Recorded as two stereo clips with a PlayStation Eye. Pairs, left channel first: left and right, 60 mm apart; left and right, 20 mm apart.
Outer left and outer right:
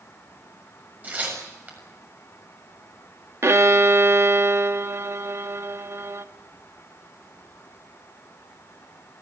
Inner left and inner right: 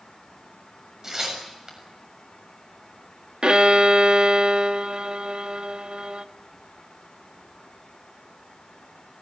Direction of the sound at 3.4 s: 50° right (ahead or behind).